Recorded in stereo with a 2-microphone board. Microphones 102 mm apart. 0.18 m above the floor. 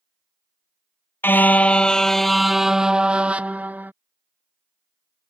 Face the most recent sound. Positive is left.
turn(degrees=-20)  # may be behind; listen again after turning